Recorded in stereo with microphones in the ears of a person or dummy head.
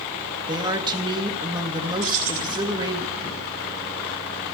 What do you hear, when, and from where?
0.5 s a woman speaking: 25° right (ahead or behind), 1.8 m
2.0 s keys jangling: 50° right (ahead or behind), 2.5 m